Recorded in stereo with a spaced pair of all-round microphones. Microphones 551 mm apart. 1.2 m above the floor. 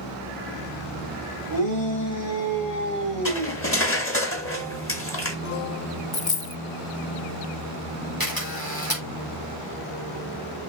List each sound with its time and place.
1.5 s a shout: 35° left (ahead or behind), 5 m; by 3.6 s 15° left (ahead or behind), 5.5 m
3.2 s cutlery clinking: 25° left (ahead or behind), 1.3 m
6.1 s a dropped coin: 45° left (ahead or behind), 0.6 m
8.2 s a camera shutter: 40° left (ahead or behind), 4 m